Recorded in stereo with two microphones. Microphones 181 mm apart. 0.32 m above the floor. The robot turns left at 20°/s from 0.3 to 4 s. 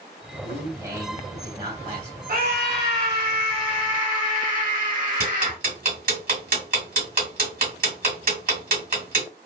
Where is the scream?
80° right, 1.9 m; by 5.6 s 115° right, 1.9 m.